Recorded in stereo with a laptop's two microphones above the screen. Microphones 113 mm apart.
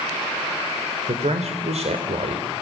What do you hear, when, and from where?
1.1 s a man speaking: 75° right (ahead or behind), 3.5 m